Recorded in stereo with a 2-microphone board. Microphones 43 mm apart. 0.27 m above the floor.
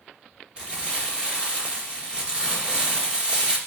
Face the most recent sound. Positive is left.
turn(degrees=-20)  # may be behind; listen again after turning